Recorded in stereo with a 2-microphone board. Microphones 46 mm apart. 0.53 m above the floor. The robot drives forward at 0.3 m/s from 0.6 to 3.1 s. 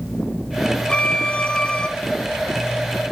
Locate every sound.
0.9 s a violin: 25° left (ahead or behind), 0.6 m